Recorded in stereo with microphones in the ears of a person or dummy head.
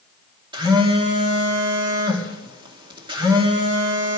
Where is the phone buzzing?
25° right (ahead or behind), 2.5 m.